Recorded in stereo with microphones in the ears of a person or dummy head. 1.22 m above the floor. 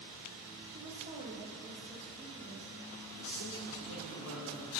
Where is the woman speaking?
35° right (ahead or behind), 1.3 m.